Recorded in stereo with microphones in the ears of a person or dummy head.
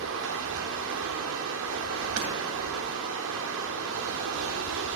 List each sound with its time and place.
0.0 s running water: 70° right (ahead or behind), 1.5 m
2.2 s hammering: 75° right (ahead or behind), 2.5 m